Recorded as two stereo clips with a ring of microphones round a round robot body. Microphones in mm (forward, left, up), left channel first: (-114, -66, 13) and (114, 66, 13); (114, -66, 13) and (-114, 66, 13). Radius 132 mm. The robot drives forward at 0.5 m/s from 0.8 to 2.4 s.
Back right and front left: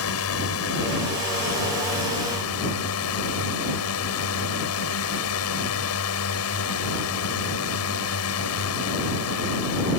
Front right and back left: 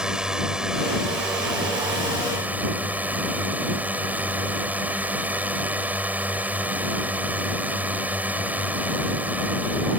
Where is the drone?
125° right.